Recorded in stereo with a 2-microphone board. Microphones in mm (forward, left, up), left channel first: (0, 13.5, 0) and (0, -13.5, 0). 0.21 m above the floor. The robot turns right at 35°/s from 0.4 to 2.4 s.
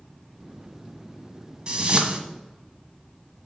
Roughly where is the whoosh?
Right.